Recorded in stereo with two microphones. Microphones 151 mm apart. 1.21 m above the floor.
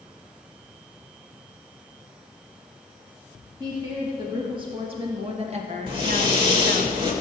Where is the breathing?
35° right (ahead or behind), 2.5 m.